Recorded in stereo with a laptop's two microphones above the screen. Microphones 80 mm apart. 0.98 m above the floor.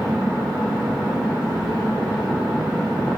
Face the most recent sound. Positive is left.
turn(degrees=-30)  # may be behind; listen again after turning